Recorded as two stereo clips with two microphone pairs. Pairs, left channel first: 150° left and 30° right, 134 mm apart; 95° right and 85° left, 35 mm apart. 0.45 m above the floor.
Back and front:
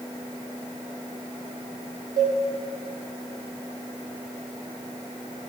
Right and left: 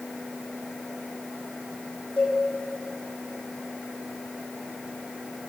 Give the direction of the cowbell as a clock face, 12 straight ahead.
1 o'clock.